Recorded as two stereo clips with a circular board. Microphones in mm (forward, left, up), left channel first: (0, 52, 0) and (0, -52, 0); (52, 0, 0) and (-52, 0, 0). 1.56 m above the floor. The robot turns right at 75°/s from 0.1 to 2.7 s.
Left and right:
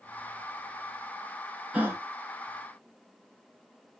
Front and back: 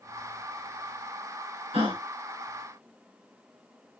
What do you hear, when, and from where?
1.7 s a gasp: 165° right, 1.2 m; by 2.0 s 150° right, 1.2 m